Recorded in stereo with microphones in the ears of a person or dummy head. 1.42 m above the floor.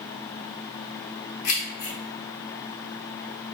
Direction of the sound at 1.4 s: 70° left (ahead or behind).